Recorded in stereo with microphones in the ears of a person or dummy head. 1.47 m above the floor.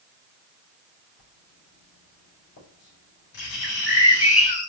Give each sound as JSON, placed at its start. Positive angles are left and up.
{"t": 1.2, "sound": "writing", "side_deg": 55, "distance_m": 7.0}
{"t": 3.6, "sound": "a bird", "side_deg": 35, "distance_m": 3.5}